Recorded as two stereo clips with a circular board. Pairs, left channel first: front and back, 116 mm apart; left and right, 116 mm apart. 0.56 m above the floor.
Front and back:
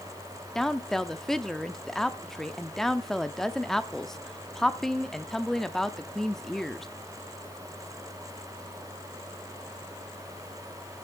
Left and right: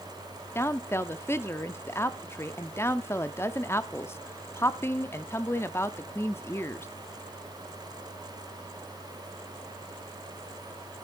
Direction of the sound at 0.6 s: 80° left.